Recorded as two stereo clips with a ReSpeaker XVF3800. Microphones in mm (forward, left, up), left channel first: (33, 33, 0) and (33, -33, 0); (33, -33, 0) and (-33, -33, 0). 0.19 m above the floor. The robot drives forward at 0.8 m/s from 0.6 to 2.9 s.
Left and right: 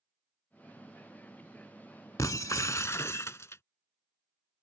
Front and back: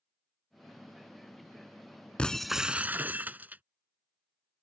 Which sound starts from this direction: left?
Breaking glass, at 2.2 s.